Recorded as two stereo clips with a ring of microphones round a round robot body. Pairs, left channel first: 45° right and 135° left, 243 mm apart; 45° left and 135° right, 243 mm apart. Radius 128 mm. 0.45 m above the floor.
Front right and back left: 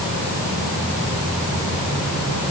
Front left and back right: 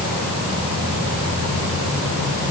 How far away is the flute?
I don't hear a flute.